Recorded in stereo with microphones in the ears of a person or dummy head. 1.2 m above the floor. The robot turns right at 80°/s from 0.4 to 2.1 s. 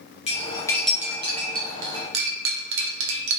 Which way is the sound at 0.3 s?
40° left (ahead or behind).